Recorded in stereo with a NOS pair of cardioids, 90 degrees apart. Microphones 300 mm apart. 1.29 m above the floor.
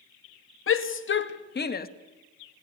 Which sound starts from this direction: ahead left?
A shout, at 0.7 s.